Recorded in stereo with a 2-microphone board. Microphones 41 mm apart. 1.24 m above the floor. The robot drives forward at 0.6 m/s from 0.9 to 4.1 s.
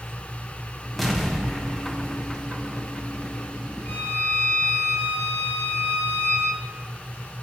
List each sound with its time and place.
1.0 s an explosion: centre (ahead or behind), 0.8 m
3.9 s a violin: 55° left (ahead or behind), 3 m; by 6.6 s 50° left (ahead or behind), 3 m